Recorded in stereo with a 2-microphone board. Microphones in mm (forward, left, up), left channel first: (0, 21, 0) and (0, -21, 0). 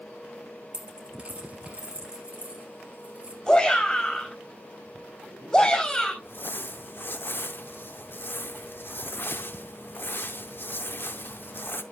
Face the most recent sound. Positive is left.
turn(degrees=60)  # may be behind; listen again after turning